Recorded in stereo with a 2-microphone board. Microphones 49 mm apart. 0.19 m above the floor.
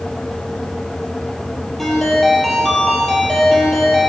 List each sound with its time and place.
1.8 s a ringtone: 5° left (ahead or behind), 3.5 m